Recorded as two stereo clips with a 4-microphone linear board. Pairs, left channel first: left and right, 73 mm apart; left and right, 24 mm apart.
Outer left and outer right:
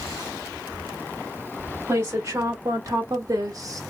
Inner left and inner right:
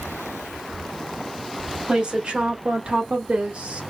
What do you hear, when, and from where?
1.9 s a woman speaking: 45° right (ahead or behind), 2 m; by 3.8 s 50° right (ahead or behind), 1.6 m